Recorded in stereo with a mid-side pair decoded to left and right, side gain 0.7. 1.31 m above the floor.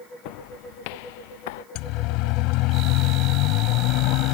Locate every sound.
0.2 s footsteps: 70° left; by 1.6 s 80° left
1.8 s a siren: 65° left